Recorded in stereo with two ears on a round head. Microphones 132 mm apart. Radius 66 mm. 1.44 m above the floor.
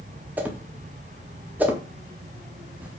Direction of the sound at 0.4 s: 10° right (ahead or behind).